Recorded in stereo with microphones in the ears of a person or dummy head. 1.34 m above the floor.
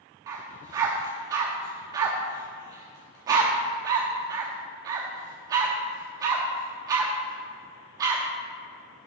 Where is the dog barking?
20° right (ahead or behind), 0.9 m.